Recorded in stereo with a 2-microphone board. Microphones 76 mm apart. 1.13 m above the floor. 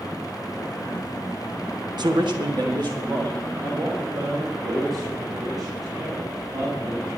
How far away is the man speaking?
About 0.8 m.